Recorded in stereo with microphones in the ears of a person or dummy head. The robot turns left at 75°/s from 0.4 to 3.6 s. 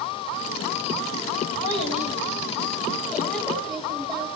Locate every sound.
1.6 s a child speaking: 145° left, 4 m; by 4.3 s 5° right, 4 m